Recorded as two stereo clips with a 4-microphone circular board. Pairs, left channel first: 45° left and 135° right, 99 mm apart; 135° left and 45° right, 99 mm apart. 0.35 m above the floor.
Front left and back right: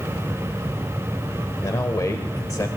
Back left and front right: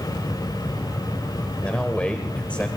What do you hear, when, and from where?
1.6 s a man speaking: 65° left, 1.0 m